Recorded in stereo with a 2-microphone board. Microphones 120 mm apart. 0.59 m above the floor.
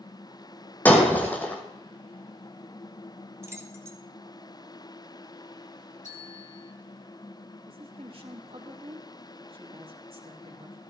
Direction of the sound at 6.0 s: 80° left.